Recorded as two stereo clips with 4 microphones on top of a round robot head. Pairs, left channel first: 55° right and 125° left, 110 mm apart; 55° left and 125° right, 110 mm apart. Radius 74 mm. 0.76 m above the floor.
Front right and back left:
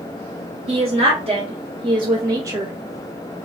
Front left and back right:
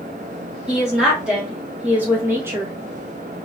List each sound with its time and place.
0.7 s a woman speaking: 150° left, 1.6 m; by 2.7 s 170° right, 0.7 m